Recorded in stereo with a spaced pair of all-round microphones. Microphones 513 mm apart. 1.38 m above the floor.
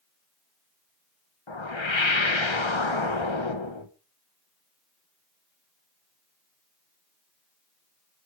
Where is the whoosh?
60° left (ahead or behind), 1.6 m.